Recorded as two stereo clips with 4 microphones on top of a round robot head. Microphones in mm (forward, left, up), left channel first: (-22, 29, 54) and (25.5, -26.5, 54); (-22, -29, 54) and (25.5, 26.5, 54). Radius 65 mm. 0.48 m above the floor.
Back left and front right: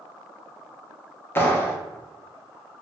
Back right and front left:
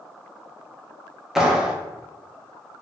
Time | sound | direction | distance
1.4 | a clap | 130° left | 0.7 m